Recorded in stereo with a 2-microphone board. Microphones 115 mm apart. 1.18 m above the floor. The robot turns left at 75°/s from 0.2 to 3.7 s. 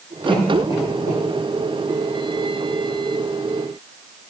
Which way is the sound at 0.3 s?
5° left (ahead or behind).